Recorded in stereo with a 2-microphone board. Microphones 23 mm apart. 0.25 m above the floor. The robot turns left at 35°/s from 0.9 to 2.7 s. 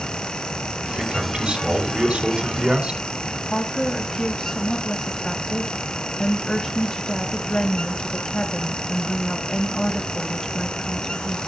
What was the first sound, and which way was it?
A man speaking, 45° right.